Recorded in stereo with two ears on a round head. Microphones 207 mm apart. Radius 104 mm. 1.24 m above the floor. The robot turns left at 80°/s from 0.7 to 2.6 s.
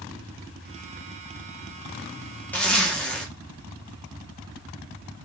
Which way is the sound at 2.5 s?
5° left (ahead or behind).